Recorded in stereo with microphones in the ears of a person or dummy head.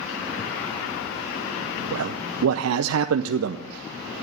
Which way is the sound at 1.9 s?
85° right.